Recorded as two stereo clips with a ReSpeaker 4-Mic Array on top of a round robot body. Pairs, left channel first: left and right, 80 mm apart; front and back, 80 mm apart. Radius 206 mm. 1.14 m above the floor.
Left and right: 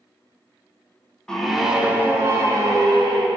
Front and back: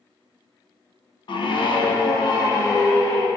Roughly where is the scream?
Ahead.